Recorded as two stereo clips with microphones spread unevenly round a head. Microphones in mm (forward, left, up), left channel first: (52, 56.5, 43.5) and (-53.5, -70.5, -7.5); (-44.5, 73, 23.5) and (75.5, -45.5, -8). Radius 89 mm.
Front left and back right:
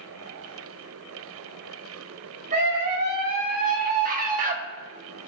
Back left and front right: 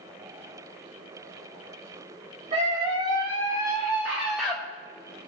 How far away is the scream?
About 3 m.